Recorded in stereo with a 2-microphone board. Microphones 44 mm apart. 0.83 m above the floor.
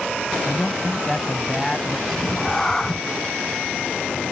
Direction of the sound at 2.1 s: 10° left (ahead or behind).